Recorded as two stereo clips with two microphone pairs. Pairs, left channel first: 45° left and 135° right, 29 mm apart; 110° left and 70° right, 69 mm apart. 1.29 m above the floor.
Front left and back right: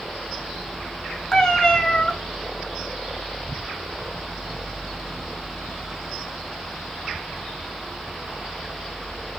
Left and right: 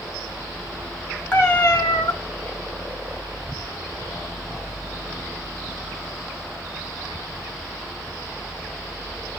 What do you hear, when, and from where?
1.3 s a cat meowing: 80° left, 1.1 m